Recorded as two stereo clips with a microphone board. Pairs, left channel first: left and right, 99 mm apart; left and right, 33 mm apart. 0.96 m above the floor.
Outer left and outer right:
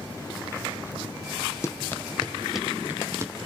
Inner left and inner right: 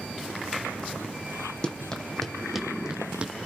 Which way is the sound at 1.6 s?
30° left (ahead or behind).